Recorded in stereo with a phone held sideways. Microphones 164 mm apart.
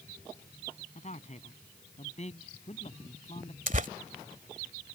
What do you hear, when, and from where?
0.9 s a man speaking: 45° left (ahead or behind); by 3.6 s 40° left (ahead or behind)
3.7 s tearing paper: 50° right (ahead or behind)